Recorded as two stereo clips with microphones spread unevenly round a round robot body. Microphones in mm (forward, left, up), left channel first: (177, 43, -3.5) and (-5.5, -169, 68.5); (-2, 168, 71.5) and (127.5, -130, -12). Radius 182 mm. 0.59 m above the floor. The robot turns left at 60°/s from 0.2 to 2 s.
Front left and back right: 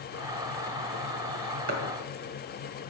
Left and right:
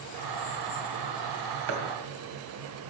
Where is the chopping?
90° right, 2.5 m; by 1.8 s 100° right, 2.5 m.